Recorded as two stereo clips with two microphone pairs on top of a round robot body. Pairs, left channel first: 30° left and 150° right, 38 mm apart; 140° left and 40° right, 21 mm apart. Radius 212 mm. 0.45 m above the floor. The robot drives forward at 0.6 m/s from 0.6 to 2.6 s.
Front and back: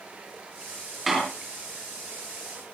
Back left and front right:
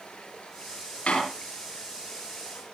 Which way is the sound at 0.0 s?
150° left.